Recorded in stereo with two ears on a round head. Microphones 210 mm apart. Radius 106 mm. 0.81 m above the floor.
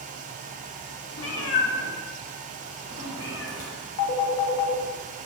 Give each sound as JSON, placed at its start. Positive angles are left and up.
{"t": 1.2, "sound": "a cat meowing", "side_deg": 60, "distance_m": 0.9}
{"t": 4.0, "sound": "a phone ringing", "side_deg": 70, "distance_m": 0.9}